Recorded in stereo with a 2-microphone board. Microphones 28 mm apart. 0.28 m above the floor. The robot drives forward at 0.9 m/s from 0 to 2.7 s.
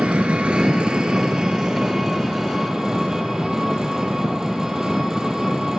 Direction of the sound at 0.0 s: 55° right (ahead or behind).